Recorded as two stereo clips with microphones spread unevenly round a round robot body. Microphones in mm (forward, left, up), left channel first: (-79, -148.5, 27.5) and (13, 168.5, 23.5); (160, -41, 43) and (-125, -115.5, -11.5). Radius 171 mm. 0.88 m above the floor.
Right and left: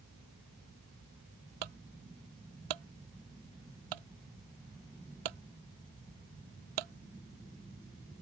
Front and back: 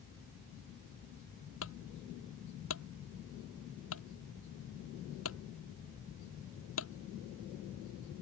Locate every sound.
1.6 s a clunk: 70° left